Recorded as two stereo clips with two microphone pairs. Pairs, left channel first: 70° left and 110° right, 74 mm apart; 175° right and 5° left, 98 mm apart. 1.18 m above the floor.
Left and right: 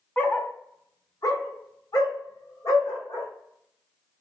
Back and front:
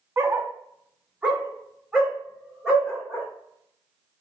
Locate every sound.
0.2 s a dog barking: 40° left, 0.6 m; by 3.3 s 90° left, 2 m